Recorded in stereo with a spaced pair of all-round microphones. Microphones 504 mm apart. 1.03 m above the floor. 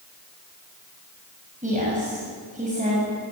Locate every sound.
1.6 s a woman speaking: 15° right (ahead or behind), 6.5 m